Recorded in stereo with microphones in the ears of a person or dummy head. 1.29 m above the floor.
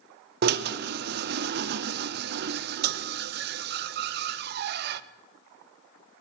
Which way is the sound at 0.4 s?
60° right (ahead or behind).